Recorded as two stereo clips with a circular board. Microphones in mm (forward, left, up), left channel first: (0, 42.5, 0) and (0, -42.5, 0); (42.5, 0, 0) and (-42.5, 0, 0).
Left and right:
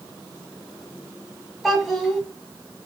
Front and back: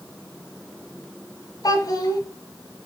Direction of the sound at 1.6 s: 5° right.